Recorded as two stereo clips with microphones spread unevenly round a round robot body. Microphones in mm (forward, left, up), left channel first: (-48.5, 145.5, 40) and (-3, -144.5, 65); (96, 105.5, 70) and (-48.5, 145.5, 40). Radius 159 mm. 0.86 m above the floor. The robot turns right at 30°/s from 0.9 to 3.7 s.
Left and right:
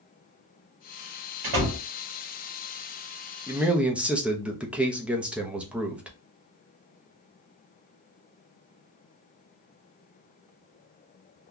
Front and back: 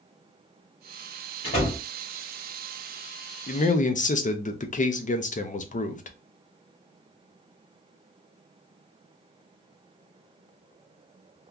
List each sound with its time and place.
1.4 s a door slam: 80° right, 1.5 m; by 1.8 s 70° right, 1.5 m
3.5 s a man speaking: straight ahead, 0.7 m; by 6.2 s 10° left, 0.7 m